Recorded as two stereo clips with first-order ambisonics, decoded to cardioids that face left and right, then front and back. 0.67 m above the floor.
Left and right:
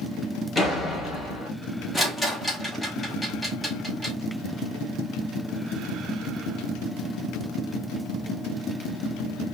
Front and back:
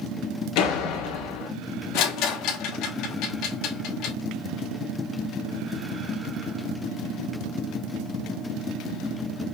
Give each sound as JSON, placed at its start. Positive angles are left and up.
{"t": 0.6, "sound": "a door slam", "azimuth_deg": 10, "distance_m": 1.6}
{"t": 1.9, "sound": "a rattle", "azimuth_deg": 5, "distance_m": 1.1}